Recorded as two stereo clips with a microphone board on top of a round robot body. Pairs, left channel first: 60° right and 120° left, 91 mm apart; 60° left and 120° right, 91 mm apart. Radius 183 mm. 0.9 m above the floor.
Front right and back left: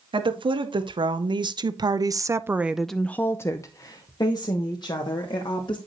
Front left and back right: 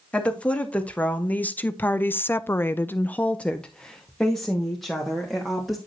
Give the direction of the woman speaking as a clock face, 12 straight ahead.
7 o'clock.